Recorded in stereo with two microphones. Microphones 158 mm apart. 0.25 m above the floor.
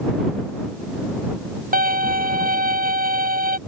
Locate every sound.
1.7 s a violin: 65° right (ahead or behind)